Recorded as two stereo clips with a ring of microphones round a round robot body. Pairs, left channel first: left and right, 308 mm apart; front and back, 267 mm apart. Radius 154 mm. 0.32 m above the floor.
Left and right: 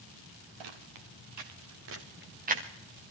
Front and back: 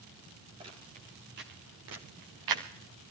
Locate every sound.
0.6 s footsteps: 105° right, 3 m; by 2.6 s 160° right, 2.5 m